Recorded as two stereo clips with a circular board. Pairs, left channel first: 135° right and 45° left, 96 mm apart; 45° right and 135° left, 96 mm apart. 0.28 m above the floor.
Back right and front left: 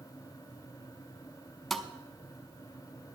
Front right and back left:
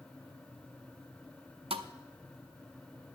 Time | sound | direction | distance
1.7 | a thud | 140° left | 0.7 m